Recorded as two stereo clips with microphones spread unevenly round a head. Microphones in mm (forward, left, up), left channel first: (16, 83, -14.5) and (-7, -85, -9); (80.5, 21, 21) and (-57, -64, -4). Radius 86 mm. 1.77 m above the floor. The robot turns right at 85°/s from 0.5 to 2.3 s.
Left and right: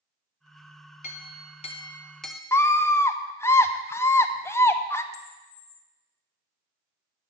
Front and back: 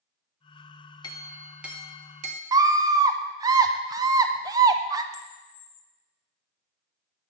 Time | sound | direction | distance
1.0 | a clink | 70° left | 1.0 m
2.5 | a scream | 145° left | 0.6 m
5.1 | a camera shutter | 65° left | 0.9 m